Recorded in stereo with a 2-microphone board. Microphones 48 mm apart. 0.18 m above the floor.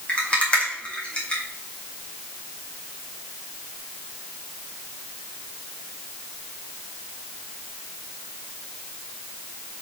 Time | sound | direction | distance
0.1 | a rattle | 25° left (ahead or behind) | 2 m